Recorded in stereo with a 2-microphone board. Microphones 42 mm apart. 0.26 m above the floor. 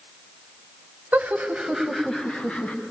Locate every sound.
1.1 s laughter: 45° right (ahead or behind), 1.3 m; by 2.8 s 35° left (ahead or behind), 1.8 m